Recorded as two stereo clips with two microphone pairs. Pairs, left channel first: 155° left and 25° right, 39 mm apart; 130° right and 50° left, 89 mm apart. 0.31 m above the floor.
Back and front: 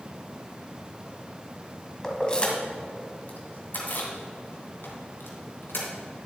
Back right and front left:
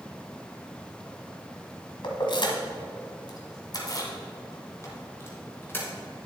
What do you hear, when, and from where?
2.0 s keys jangling: 130° right, 1.4 m; by 5.9 s 165° left, 2.5 m